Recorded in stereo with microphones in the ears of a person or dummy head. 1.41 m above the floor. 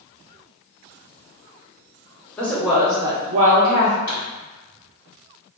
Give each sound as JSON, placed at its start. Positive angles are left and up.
{"t": 2.4, "sound": "a woman speaking", "side_deg": 5, "distance_m": 1.0}
{"t": 4.1, "sound": "a pop", "side_deg": 15, "distance_m": 1.7}